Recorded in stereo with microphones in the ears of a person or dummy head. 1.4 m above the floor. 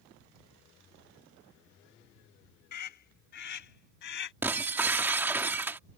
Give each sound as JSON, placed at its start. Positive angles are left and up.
{"t": 2.7, "sound": "a scream", "side_deg": 50}
{"t": 4.4, "sound": "breaking glass", "side_deg": -10}